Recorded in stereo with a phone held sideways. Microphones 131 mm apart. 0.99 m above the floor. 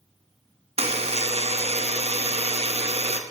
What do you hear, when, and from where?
0.8 s a buzzer: 55° right (ahead or behind), 0.8 m